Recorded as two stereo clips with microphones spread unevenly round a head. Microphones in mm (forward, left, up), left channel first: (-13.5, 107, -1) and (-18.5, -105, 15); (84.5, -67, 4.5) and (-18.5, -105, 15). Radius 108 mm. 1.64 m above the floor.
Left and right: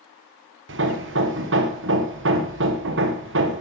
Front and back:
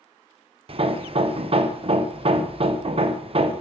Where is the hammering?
125° right, 1.4 m.